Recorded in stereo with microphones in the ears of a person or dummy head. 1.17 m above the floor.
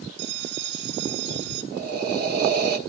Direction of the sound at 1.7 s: 55° right (ahead or behind).